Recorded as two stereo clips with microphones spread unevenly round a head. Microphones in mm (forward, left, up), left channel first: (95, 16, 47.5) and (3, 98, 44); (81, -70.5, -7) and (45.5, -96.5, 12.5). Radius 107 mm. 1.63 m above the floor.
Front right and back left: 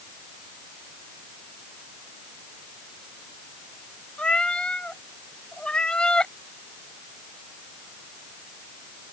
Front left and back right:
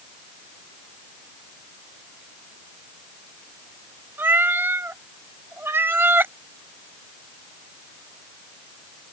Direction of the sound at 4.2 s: 125° right.